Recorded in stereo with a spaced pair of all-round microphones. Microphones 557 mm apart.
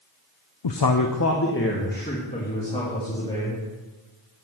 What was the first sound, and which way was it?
A man speaking, 55° left (ahead or behind).